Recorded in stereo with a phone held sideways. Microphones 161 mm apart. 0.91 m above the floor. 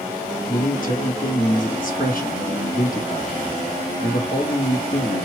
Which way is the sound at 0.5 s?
60° left (ahead or behind).